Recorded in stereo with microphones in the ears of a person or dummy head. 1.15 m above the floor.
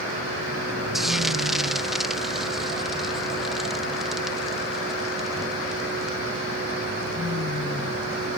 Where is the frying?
Centre (ahead or behind).